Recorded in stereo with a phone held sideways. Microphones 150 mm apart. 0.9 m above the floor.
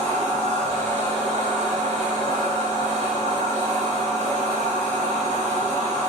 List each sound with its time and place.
0.0 s a machine running: 55° right (ahead or behind), 1.0 m